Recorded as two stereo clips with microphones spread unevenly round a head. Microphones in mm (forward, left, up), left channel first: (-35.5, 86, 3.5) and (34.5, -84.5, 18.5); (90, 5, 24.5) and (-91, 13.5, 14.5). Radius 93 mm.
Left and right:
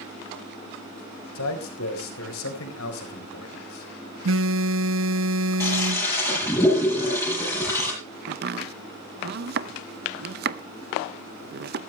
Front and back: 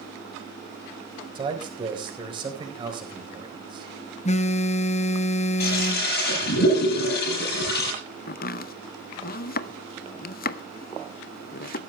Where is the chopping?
35° right, 0.7 m.